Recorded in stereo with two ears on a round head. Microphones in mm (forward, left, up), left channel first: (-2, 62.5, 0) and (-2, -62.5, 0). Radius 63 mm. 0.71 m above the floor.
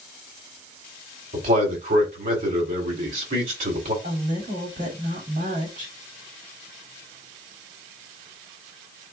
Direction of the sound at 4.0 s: 65° right (ahead or behind).